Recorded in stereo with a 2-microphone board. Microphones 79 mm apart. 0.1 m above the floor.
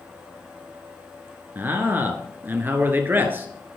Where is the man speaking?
25° right (ahead or behind), 1.5 m.